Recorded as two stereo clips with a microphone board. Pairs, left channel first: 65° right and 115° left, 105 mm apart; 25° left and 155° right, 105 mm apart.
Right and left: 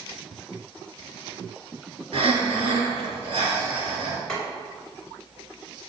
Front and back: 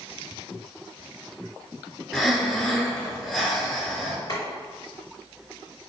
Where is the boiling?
10° left, 1.9 m.